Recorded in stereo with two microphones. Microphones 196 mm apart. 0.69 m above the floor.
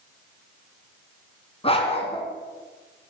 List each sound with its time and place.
1.6 s a dog barking: 30° left (ahead or behind), 2.5 m